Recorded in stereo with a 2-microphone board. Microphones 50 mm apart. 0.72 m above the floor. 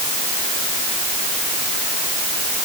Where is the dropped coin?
No dropped coin in this recording.